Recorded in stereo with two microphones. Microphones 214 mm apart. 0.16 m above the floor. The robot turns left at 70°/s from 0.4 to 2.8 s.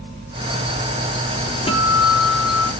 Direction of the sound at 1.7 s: 150° left.